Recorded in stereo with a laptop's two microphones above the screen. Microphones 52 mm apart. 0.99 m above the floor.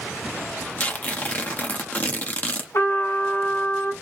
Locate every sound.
0.8 s tearing paper: 35° left (ahead or behind), 0.7 m
2.7 s a trumpet: 70° left (ahead or behind), 2 m